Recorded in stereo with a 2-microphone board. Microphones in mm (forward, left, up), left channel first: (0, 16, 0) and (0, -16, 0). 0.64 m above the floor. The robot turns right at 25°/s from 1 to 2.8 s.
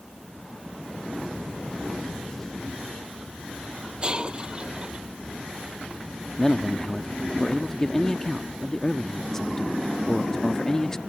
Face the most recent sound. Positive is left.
turn(degrees=20)  # may be behind; listen again after turning